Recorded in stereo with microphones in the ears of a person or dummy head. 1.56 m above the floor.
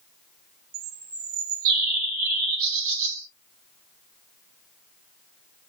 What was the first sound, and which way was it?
A bird, 50° right (ahead or behind).